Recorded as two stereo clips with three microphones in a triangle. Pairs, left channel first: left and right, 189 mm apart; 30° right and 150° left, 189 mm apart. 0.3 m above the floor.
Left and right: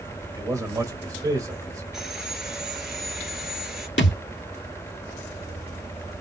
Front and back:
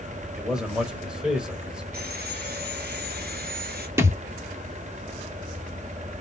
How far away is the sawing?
About 1.3 m.